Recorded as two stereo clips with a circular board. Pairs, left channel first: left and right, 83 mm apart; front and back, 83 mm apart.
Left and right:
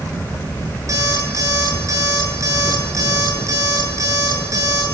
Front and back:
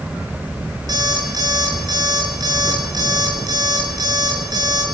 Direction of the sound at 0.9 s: 140° right.